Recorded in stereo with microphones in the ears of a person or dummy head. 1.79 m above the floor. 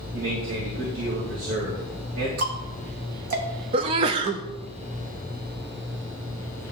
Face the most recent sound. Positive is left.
turn(degrees=-35)  # may be behind; listen again after turning